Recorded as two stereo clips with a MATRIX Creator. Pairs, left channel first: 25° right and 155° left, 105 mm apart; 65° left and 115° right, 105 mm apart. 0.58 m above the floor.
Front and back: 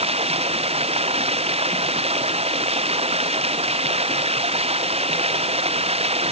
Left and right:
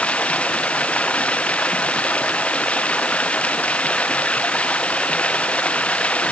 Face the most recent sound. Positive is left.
turn(degrees=145)